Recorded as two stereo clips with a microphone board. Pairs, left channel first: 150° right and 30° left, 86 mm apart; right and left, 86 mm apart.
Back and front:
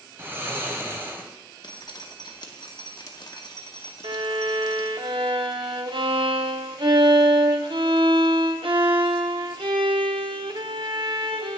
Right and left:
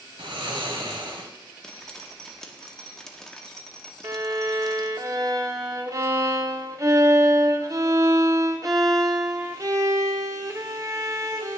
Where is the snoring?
95° left, 1.1 m.